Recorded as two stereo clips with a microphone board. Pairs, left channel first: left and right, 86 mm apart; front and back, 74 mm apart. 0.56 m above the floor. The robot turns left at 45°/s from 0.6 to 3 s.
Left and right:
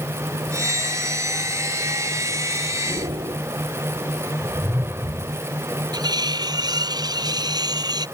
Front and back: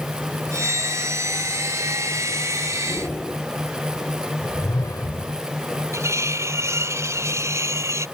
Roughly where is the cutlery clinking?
Behind right.